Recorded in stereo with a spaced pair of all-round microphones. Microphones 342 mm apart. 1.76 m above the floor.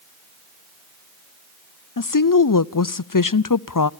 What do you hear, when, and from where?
2.0 s a woman speaking: 65° left (ahead or behind), 0.6 m